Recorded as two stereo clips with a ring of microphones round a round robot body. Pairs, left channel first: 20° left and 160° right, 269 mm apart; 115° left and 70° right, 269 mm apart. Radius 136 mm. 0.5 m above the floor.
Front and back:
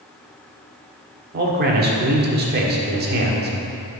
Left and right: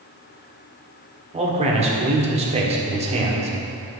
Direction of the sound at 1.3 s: 125° right.